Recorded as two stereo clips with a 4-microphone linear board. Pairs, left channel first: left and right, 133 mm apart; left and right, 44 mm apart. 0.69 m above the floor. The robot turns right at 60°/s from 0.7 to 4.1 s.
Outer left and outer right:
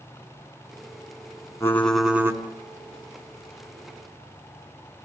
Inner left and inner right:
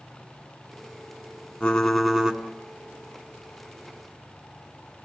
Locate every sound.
1.6 s typing on a keyboard: 160° left, 1.6 m; by 2.4 s 155° right, 1.6 m